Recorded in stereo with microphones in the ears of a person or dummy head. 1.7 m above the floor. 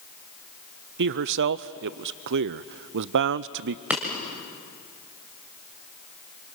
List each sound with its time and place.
1.0 s a man speaking: 60° right (ahead or behind), 0.6 m
3.9 s breaking glass: 5° right (ahead or behind), 2.0 m